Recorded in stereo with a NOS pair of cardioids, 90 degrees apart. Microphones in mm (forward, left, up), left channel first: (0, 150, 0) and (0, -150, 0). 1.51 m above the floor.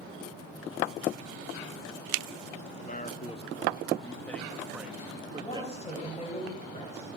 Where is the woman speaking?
20° left, 8.5 m.